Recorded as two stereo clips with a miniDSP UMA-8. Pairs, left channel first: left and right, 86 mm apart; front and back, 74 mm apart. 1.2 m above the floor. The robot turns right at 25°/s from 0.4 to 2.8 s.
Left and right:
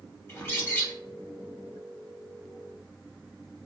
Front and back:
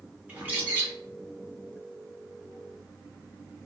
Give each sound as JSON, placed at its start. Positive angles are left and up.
{"t": 0.3, "sound": "a bird", "azimuth_deg": 125, "distance_m": 0.9}